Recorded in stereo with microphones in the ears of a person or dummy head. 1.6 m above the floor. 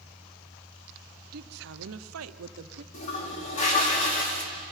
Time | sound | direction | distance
1.3 | a woman speaking | 50° right (ahead or behind) | 0.9 m
2.9 | a toilet flushing | 45° left (ahead or behind) | 2.5 m